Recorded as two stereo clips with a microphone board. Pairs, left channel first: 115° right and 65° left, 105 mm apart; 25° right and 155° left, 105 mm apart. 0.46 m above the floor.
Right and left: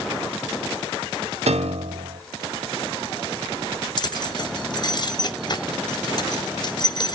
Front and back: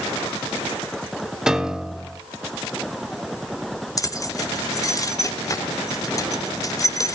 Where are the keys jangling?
75° right, 0.8 m.